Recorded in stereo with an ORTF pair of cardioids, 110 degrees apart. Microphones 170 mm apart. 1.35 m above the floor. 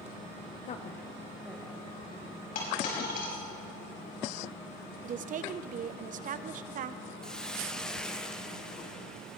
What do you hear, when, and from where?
0.7 s a woman speaking: 50° left, 0.7 m; by 2.6 s 15° right, 2.5 m
2.5 s a dropped coin: 60° left, 4.5 m
5.0 s a woman speaking: 50° right, 0.7 m
7.2 s a hiss: 5° left, 0.9 m